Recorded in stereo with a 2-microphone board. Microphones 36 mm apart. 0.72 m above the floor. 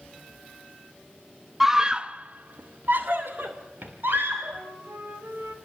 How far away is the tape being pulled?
I don't hear tape being pulled.